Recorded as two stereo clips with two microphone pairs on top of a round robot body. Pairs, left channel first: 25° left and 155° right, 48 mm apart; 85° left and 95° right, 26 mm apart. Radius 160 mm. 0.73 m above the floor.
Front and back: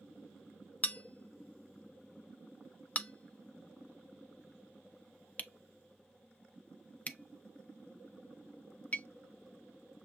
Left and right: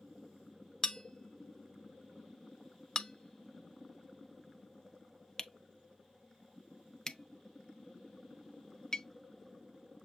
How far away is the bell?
About 0.7 m.